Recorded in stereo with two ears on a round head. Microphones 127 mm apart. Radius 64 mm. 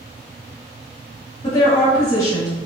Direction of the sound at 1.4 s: 25° left (ahead or behind).